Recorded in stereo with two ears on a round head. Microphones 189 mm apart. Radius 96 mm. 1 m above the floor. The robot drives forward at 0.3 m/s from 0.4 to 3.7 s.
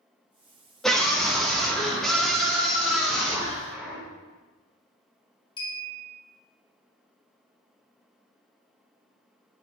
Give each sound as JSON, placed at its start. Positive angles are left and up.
{"t": 0.8, "sound": "a scream", "side_deg": 0, "distance_m": 1.4}
{"t": 3.7, "sound": "a clunk", "side_deg": -10, "distance_m": 2.5}
{"t": 5.6, "sound": "a clink", "side_deg": 25, "distance_m": 1.9}